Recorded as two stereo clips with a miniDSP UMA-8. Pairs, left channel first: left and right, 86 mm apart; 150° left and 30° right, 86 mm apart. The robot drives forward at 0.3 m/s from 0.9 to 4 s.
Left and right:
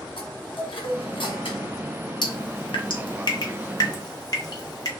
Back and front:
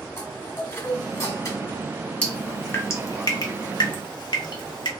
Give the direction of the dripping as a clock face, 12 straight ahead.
9 o'clock.